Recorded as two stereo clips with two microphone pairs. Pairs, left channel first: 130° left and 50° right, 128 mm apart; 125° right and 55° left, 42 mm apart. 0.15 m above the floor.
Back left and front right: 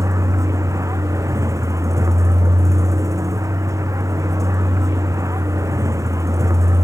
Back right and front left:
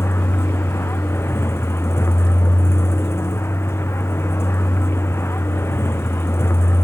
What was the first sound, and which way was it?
A vehicle, 120° right.